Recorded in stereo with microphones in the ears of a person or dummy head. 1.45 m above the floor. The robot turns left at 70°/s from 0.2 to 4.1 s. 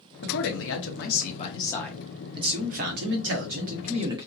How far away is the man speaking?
About 0.9 m.